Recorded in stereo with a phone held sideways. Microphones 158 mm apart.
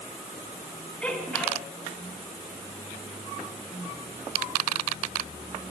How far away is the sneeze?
About 5 m.